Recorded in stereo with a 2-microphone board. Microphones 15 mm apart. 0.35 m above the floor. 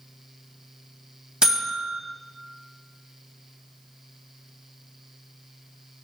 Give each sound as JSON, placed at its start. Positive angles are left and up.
{"t": 1.4, "sound": "a buzzer", "side_deg": -60, "distance_m": 1.8}